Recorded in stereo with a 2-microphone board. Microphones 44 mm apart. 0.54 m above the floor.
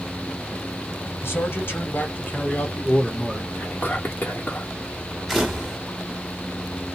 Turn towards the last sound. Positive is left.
turn(degrees=-5)  # may be behind; listen again after turning